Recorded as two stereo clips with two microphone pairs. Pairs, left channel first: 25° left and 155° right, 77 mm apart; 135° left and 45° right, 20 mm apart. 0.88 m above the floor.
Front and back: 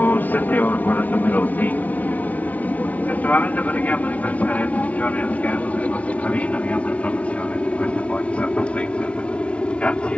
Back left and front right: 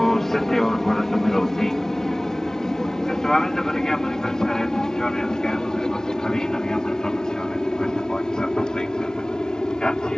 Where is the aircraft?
70° left; by 10.2 s 100° left.